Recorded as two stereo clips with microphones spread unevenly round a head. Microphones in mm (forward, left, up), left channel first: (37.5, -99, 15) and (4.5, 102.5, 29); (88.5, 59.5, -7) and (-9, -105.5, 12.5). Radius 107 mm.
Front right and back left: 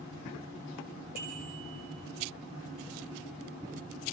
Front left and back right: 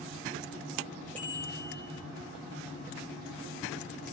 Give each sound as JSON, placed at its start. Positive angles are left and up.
{"t": 1.1, "sound": "a bicycle bell", "azimuth_deg": 145, "distance_m": 8.0}